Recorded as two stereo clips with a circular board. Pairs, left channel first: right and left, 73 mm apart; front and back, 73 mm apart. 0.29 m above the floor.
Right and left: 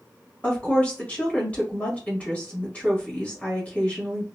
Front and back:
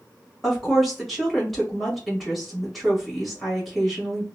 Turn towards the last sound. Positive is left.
turn(degrees=-85)